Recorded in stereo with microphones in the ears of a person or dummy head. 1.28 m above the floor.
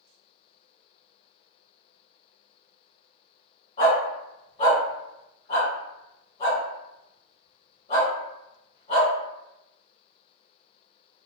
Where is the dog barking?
40° left (ahead or behind), 1.7 m.